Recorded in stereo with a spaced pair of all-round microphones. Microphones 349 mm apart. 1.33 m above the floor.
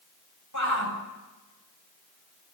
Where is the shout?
55° left (ahead or behind), 8 m.